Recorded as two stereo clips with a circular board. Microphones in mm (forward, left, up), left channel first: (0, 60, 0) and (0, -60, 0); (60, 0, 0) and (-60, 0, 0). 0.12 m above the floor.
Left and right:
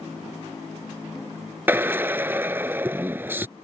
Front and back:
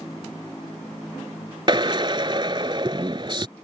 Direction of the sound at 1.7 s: 155° right.